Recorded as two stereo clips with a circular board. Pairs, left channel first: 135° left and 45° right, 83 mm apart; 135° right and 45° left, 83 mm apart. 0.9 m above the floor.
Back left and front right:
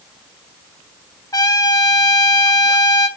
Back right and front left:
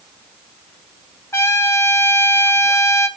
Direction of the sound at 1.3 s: 170° left.